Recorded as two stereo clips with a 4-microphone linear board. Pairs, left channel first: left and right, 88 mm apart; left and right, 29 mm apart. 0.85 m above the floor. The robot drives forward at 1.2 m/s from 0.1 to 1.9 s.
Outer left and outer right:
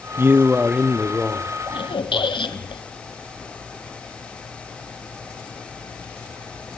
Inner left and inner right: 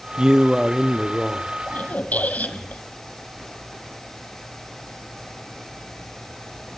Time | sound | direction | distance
0.2 | a man speaking | 30° right (ahead or behind) | 0.5 m
1.7 | a squeak | 70° left (ahead or behind) | 1.5 m